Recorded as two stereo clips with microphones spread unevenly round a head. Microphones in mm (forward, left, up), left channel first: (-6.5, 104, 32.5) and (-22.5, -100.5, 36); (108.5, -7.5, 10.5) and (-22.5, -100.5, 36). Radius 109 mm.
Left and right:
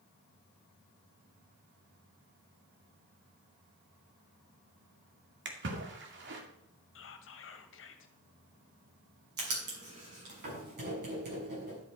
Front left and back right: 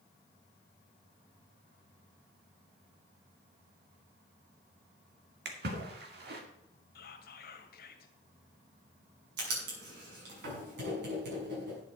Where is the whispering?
60° left, 1.8 m.